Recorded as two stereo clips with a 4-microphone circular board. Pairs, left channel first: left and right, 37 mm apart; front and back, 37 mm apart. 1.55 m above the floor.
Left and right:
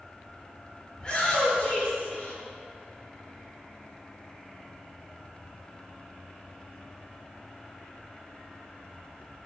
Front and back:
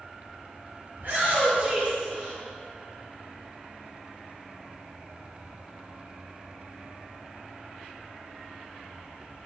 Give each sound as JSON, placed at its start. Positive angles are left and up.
{"t": 0.9, "sound": "a shout", "azimuth_deg": 160, "distance_m": 1.8}